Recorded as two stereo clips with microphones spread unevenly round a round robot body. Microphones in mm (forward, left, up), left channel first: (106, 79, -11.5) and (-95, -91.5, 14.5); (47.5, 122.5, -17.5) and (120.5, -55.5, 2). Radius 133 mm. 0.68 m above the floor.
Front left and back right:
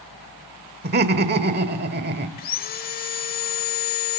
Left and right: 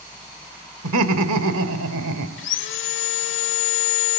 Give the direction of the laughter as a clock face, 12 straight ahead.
3 o'clock.